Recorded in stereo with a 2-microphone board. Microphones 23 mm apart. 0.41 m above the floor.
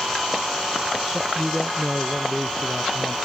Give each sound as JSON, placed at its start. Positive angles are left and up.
{"t": 1.1, "sound": "a man speaking", "side_deg": 0}